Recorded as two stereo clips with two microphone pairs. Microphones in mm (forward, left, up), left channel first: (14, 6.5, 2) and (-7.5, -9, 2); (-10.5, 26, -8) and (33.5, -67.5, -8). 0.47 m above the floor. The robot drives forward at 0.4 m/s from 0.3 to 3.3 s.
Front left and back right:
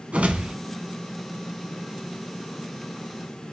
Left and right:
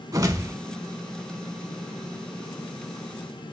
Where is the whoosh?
120° right, 0.8 m; by 0.6 s 125° right, 0.8 m.